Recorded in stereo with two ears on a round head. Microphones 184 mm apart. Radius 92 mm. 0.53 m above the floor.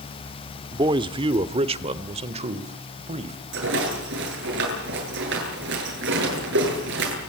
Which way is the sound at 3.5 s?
60° right (ahead or behind).